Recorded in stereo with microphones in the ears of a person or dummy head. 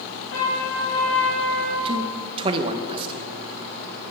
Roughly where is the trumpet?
Left.